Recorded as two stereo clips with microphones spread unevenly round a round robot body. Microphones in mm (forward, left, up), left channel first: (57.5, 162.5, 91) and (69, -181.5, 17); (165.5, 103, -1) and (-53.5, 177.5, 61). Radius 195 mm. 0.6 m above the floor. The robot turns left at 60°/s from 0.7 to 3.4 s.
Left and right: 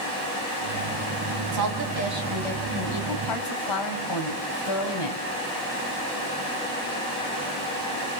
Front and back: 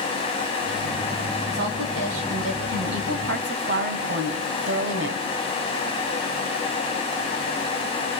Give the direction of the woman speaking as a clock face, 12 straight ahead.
4 o'clock.